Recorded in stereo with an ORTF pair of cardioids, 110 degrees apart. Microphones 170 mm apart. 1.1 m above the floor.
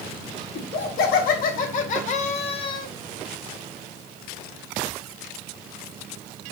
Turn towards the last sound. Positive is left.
turn(degrees=30)